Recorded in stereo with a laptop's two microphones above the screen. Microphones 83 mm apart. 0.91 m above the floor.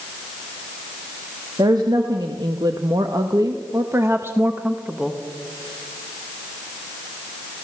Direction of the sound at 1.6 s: 60° right (ahead or behind).